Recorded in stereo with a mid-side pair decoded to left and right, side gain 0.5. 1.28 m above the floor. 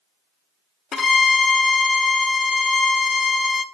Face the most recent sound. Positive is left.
turn(degrees=50)